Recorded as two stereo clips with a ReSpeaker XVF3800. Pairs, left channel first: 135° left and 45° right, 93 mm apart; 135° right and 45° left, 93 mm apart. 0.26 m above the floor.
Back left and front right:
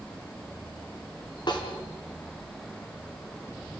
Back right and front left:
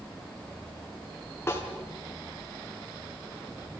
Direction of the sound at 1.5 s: 165° left.